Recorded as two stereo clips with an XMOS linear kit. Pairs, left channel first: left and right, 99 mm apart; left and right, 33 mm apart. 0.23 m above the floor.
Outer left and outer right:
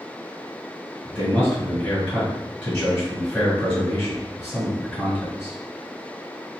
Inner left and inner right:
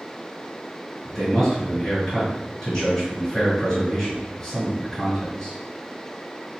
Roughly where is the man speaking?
Centre.